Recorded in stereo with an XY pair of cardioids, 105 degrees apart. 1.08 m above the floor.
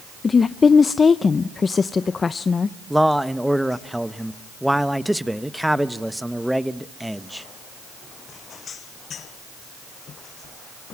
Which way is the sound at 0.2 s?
35° left.